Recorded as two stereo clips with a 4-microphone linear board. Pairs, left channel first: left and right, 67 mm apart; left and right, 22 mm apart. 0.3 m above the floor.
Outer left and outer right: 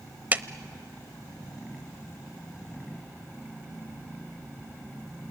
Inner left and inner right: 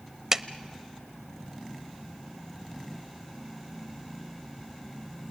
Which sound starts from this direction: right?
A clap, at 0.3 s.